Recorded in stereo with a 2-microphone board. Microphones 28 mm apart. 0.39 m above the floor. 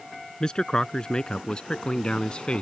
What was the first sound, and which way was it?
A man speaking, 30° left (ahead or behind).